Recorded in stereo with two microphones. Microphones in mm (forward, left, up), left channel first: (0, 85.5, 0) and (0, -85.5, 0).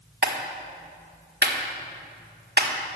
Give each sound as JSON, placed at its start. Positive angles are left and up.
{"t": 0.2, "sound": "a clap", "side_deg": -70, "distance_m": 1.5}